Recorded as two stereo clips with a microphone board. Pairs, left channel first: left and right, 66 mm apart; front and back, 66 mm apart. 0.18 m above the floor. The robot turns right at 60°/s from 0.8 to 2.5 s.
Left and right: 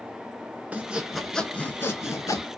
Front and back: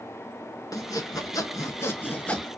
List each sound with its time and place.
0.7 s sawing: 25° right, 0.7 m; by 2.5 s 75° left, 0.7 m